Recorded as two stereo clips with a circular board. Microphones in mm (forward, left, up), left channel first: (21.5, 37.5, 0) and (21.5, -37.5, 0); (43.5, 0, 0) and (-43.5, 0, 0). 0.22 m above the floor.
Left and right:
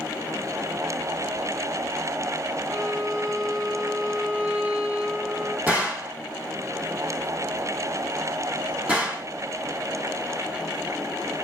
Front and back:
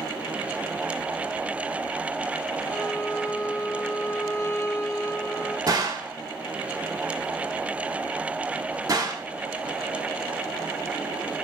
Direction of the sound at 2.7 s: 35° right.